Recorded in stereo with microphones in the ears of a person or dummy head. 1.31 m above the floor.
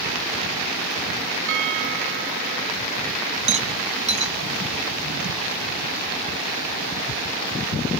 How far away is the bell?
About 1.6 m.